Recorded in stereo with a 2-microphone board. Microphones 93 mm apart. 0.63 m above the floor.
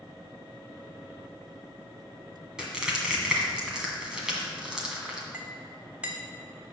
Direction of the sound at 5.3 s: 15° right (ahead or behind).